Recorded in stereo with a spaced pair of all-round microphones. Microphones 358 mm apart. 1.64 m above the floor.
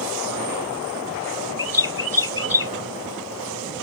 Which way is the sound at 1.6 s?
70° right (ahead or behind).